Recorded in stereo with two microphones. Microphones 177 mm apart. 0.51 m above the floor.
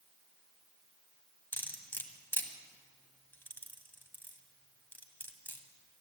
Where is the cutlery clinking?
10° left (ahead or behind), 1.6 m.